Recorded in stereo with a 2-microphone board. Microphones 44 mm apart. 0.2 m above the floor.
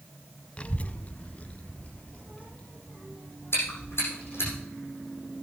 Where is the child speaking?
25° left (ahead or behind), 0.6 m.